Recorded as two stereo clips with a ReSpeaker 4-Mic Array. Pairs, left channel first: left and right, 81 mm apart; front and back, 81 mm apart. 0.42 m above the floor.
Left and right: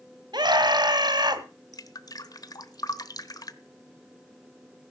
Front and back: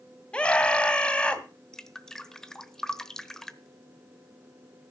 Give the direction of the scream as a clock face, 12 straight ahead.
3 o'clock.